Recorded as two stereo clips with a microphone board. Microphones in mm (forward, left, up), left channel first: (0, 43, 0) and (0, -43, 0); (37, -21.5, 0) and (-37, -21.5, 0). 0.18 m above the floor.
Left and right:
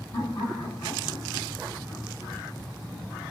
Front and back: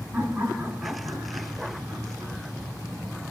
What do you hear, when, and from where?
0.1 s laughter: 110° left, 2 m